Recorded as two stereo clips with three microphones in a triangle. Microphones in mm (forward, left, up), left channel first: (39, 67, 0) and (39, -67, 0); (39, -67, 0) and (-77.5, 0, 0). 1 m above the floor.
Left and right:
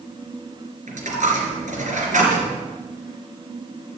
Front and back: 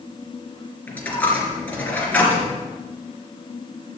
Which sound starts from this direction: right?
A dropped coin, at 0.9 s.